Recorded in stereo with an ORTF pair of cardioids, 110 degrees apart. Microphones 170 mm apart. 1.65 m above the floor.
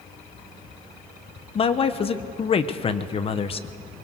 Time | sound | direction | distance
1.6 | a man speaking | 35° left | 1.3 m